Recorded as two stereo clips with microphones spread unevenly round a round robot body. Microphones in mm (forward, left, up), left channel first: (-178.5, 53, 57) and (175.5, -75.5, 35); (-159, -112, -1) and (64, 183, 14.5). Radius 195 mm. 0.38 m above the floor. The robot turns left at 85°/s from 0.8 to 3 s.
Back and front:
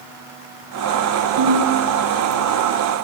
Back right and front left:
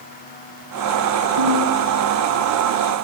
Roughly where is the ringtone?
Ahead.